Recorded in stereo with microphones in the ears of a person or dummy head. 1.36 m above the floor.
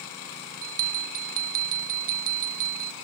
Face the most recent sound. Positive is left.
turn(degrees=-40)  # may be behind; listen again after turning